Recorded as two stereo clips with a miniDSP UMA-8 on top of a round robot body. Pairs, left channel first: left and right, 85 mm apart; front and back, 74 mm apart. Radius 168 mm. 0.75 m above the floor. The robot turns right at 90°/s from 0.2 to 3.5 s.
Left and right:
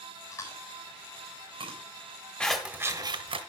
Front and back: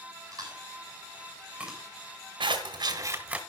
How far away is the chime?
No chime in this recording.